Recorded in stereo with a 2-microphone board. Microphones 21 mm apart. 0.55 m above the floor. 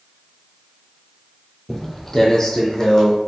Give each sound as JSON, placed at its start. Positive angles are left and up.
{"t": 1.7, "sound": "footsteps", "side_deg": 10, "distance_m": 0.8}